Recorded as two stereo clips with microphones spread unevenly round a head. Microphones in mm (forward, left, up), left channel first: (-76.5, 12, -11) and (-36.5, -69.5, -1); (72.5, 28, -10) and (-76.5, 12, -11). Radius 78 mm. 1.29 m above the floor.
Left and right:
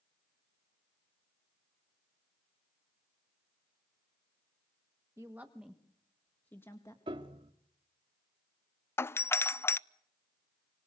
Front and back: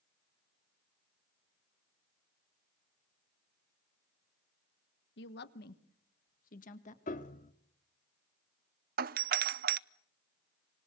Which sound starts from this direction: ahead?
A woman speaking, at 5.2 s.